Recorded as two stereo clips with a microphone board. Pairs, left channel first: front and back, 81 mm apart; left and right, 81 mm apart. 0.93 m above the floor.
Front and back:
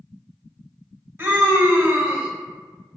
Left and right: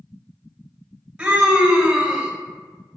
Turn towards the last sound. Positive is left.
turn(degrees=-150)